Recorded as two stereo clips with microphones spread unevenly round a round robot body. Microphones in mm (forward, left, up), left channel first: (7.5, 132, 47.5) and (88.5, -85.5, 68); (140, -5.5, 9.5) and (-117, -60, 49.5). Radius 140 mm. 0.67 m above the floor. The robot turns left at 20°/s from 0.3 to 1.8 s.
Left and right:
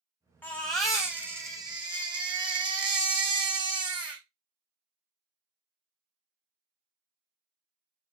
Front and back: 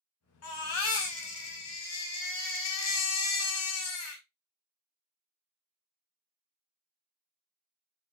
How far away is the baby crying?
About 1.5 m.